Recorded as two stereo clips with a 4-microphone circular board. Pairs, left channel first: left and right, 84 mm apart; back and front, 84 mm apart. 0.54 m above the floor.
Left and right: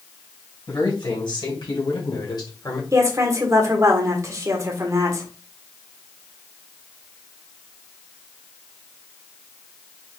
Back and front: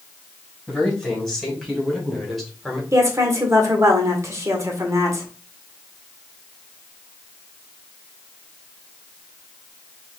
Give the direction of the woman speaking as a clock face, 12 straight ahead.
2 o'clock.